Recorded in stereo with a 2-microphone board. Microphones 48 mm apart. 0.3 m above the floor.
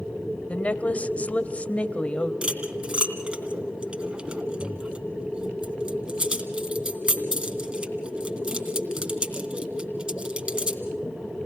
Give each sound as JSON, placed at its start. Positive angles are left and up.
{"t": 0.5, "sound": "a woman speaking", "side_deg": 30, "distance_m": 1.1}
{"t": 2.4, "sound": "cutlery clinking", "side_deg": -25, "distance_m": 2.5}